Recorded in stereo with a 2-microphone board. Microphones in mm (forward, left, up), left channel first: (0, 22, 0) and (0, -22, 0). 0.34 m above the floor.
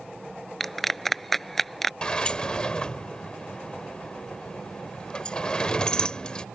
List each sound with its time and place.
0.6 s a clap: 5° left (ahead or behind)
2.0 s a sliding door: 20° left (ahead or behind)